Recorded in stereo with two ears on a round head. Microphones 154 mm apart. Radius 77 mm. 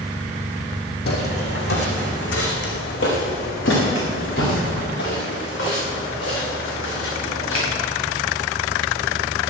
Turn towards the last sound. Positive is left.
turn(degrees=85)